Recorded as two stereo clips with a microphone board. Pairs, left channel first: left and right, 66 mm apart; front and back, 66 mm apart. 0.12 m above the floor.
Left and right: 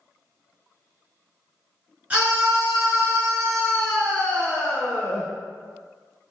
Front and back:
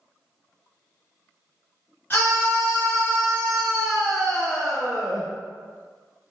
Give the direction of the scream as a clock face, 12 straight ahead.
1 o'clock.